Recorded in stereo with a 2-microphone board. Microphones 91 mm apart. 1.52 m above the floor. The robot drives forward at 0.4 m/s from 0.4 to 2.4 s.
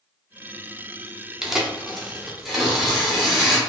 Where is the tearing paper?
5° right (ahead or behind), 0.6 m.